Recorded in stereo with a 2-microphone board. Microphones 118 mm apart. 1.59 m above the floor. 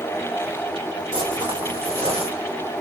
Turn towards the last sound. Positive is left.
turn(degrees=-60)  # may be behind; listen again after turning